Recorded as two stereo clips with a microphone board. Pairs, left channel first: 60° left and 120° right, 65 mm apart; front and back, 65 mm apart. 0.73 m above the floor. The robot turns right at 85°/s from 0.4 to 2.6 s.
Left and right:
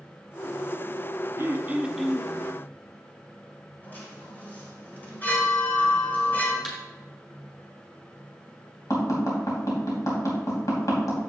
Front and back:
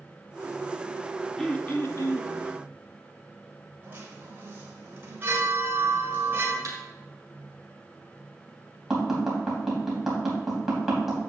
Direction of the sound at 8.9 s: 95° left.